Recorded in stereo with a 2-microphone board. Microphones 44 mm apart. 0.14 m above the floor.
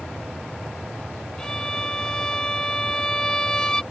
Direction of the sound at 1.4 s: 15° left (ahead or behind).